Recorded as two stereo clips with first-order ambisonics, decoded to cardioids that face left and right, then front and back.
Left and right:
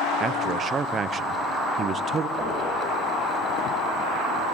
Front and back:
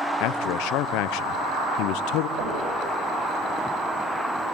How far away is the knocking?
About 8.5 m.